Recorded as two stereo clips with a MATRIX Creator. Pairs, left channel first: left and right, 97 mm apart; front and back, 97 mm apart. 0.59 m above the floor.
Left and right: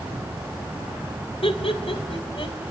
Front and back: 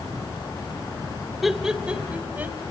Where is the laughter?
90° left, 2 m; by 2.6 s 110° left, 2.5 m.